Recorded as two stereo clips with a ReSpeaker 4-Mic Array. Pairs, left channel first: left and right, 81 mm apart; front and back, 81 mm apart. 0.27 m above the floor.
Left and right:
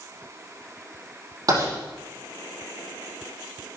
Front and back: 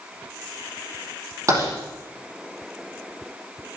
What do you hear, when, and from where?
1.5 s writing: 130° right, 7 m